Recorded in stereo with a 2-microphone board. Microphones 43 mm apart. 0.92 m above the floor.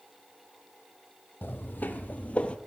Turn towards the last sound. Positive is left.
turn(degrees=25)  # may be behind; listen again after turning